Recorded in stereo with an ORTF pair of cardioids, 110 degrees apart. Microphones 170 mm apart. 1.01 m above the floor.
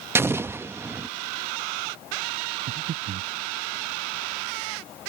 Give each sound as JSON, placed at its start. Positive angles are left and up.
{"t": 0.1, "sound": "an explosion", "azimuth_deg": -15}
{"t": 2.7, "sound": "breathing", "azimuth_deg": -50}